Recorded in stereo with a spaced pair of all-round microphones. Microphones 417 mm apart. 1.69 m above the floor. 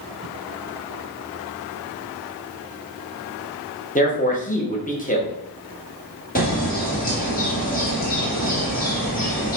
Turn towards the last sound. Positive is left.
turn(degrees=20)  # may be behind; listen again after turning